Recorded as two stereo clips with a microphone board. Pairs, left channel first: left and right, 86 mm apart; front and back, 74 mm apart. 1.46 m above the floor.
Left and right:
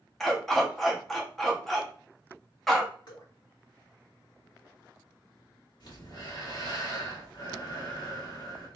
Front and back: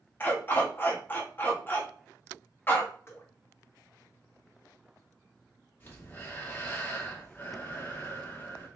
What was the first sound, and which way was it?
A dog barking, 5° left.